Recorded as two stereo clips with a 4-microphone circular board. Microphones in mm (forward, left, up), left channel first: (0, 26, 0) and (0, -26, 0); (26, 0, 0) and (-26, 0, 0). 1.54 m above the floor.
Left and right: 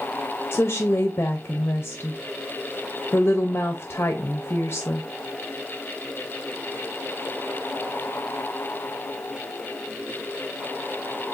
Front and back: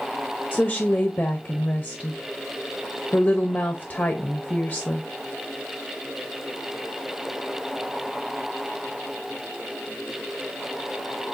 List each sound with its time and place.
0.5 s a woman speaking: 50° left, 0.6 m